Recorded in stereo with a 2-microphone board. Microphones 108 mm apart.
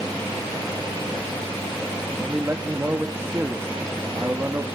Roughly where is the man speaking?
Right.